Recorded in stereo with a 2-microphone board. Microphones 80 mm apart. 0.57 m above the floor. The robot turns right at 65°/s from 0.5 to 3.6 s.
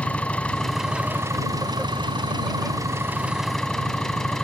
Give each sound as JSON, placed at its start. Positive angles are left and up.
{"t": 0.0, "sound": "an engine running", "azimuth_deg": 165}